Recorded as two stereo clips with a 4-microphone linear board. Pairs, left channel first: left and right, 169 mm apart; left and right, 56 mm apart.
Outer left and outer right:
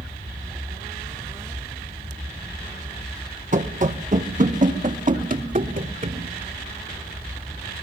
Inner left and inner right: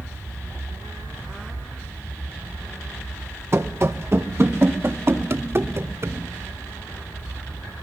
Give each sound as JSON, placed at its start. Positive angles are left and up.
{"t": 3.5, "sound": "running footsteps", "side_deg": -50, "distance_m": 1.6}